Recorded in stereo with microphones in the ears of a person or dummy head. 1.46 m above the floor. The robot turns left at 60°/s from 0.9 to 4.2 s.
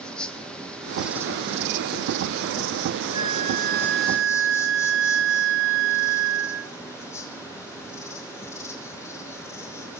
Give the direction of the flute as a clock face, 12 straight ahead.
1 o'clock.